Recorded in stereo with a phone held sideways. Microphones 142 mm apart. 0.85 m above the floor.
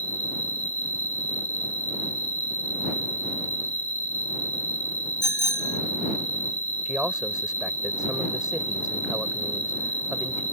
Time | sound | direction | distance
0.0 | an insect | 50° left (ahead or behind) | ?
5.2 | a bicycle bell | 25° left (ahead or behind) | ?
6.8 | a man speaking | 5° right (ahead or behind) | ?